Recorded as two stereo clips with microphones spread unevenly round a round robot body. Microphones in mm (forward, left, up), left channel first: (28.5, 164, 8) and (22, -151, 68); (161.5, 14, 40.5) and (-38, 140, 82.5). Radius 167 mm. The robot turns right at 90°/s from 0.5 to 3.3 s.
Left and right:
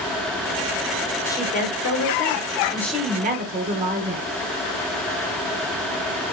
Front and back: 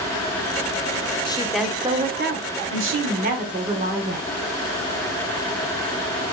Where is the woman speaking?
20° left, 1.0 m; by 4.3 s 155° right, 1.0 m.